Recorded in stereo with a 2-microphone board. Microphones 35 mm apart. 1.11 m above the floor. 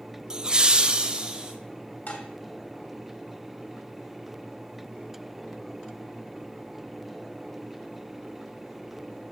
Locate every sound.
0.3 s laughter: 25° right (ahead or behind), 0.5 m; by 1.5 s 30° right (ahead or behind), 1.0 m
2.1 s dishes clattering: 55° left (ahead or behind), 2 m